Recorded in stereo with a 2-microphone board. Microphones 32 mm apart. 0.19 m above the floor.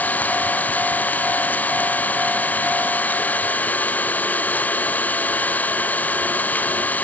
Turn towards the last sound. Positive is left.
turn(degrees=75)  # may be behind; listen again after turning